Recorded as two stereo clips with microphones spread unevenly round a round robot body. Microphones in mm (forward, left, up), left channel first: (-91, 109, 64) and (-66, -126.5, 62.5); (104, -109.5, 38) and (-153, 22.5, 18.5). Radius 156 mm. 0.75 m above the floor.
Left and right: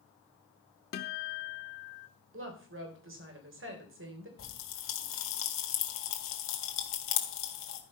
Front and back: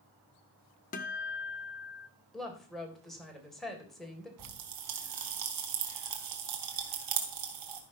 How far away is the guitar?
About 0.6 m.